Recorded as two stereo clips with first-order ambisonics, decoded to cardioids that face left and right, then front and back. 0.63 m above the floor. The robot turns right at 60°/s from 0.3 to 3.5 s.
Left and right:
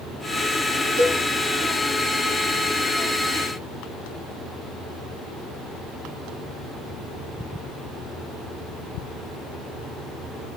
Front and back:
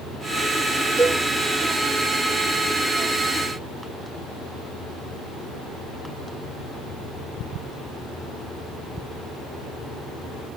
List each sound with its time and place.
1.0 s a cowbell: 65° right, 1.4 m; by 1.2 s 50° right, 1.4 m